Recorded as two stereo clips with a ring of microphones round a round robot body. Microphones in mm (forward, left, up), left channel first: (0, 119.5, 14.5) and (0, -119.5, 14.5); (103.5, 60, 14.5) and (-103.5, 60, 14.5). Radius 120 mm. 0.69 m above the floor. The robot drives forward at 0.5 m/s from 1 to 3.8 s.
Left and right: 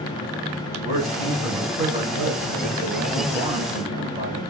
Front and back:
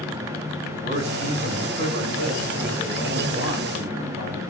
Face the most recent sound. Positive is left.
turn(degrees=-160)